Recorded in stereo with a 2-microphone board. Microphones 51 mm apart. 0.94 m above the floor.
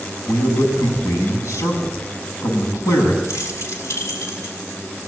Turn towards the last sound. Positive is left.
turn(degrees=75)  # may be behind; listen again after turning